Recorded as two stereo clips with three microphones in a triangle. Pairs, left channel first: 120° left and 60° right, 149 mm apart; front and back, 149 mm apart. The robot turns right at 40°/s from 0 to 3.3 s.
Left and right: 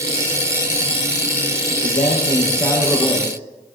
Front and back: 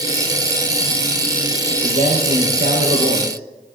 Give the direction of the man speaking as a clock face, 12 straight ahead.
7 o'clock.